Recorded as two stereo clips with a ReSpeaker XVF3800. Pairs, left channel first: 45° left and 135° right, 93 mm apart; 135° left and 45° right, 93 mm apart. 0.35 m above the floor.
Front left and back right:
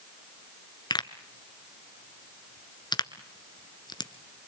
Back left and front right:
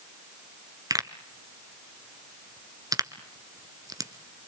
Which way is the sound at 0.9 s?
5° left.